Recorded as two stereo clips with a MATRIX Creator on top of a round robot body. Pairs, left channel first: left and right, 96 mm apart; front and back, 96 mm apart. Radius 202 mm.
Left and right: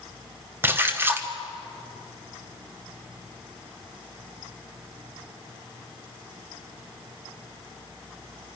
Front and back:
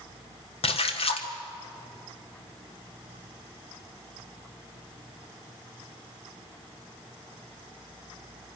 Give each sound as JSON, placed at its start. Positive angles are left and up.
{"t": 0.6, "sound": "a splash", "azimuth_deg": -20, "distance_m": 1.4}